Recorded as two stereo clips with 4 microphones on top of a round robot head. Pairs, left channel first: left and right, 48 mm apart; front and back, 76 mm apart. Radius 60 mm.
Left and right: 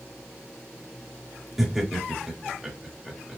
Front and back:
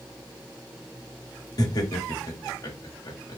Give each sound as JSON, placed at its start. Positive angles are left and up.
{"t": 1.6, "sound": "laughter", "azimuth_deg": -5, "distance_m": 1.6}